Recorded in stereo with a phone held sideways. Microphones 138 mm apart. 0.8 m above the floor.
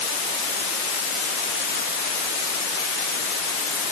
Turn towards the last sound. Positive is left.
No sound to turn to.